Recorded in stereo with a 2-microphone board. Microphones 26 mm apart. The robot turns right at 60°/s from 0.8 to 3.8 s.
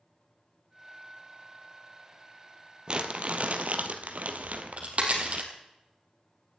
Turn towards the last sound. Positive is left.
turn(degrees=-50)  # may be behind; listen again after turning